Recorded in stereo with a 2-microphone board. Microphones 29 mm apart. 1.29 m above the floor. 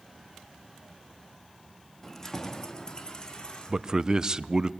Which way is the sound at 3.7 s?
25° right (ahead or behind).